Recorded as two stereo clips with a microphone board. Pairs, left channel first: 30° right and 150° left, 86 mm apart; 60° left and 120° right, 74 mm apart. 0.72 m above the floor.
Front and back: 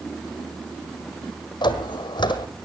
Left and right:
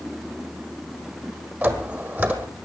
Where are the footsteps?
55° right, 1.6 m.